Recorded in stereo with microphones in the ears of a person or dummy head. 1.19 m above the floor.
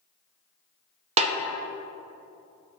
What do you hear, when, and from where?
1.2 s a snare drum: 35° right (ahead or behind), 0.7 m